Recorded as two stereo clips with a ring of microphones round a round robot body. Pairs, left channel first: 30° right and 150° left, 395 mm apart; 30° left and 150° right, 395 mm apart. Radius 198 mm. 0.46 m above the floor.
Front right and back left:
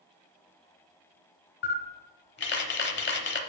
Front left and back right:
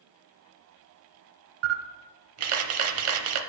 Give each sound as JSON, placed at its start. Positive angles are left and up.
{"t": 1.6, "sound": "a camera shutter", "azimuth_deg": -95, "distance_m": 0.7}